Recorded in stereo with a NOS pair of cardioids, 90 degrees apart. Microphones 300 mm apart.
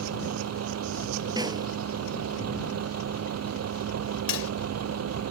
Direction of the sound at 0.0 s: 60° right.